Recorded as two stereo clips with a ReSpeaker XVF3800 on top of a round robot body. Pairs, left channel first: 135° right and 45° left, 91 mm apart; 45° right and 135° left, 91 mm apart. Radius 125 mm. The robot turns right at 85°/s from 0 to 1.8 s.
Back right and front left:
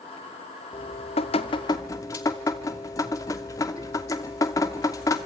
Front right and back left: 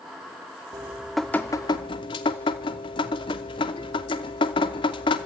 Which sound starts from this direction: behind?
Dripping, at 0.7 s.